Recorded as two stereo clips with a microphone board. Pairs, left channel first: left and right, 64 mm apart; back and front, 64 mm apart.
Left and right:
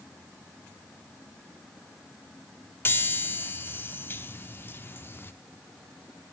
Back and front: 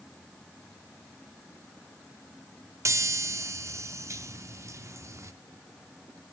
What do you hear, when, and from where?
2.9 s a chime: 35° left, 0.8 m